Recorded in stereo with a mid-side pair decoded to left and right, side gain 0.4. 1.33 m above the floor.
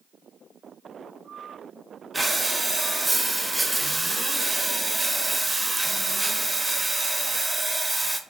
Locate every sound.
2.1 s breathing: 20° right, 0.6 m